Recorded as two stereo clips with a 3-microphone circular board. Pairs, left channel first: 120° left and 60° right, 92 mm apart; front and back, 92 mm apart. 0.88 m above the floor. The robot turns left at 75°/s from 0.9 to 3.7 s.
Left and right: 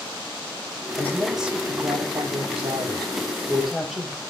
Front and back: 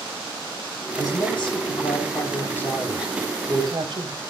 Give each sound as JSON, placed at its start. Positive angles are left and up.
{"t": 1.0, "sound": "a woman speaking", "azimuth_deg": 55, "distance_m": 4.0}